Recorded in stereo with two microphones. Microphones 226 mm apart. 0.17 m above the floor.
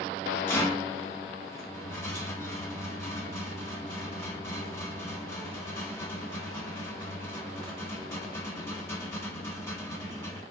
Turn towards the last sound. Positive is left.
turn(degrees=10)  # may be behind; listen again after turning